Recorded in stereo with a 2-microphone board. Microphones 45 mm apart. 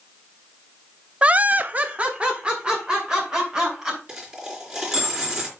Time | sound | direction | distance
1.2 | laughter | 25° right (ahead or behind) | 0.6 m
4.1 | a dropped coin | 20° right (ahead or behind) | 3.5 m